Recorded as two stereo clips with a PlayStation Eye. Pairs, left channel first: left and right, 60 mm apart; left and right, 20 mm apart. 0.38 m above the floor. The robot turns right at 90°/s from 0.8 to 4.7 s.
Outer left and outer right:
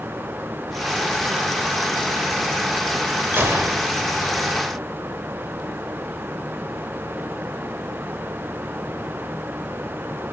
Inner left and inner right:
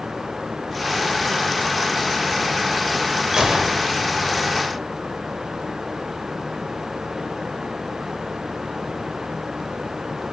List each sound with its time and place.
3.3 s a gunshot: 125° right, 1.1 m; by 3.9 s 75° right, 1.1 m